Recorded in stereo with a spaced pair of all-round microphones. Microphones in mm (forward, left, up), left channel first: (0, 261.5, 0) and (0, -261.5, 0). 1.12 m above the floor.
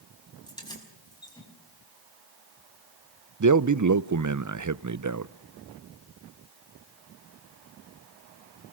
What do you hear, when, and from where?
0.5 s keys jangling: 10° left (ahead or behind), 5.5 m
3.4 s a man speaking: 35° right (ahead or behind), 0.6 m